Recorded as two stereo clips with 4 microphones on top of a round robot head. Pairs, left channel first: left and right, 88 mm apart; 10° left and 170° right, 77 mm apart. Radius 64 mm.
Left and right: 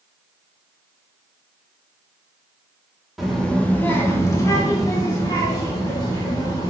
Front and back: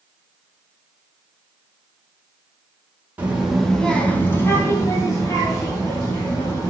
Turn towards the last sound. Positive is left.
turn(degrees=40)